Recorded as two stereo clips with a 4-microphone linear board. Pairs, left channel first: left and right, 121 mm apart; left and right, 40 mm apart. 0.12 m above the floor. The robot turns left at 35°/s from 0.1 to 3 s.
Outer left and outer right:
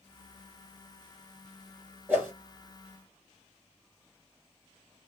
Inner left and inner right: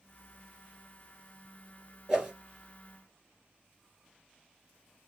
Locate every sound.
2.1 s a whoosh: 15° right (ahead or behind), 1.7 m; by 2.3 s 20° right (ahead or behind), 1.7 m